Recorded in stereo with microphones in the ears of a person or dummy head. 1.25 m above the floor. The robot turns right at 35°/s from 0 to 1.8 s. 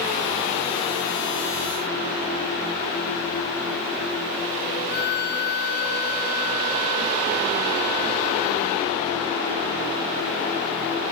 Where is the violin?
55° left (ahead or behind), 0.8 m.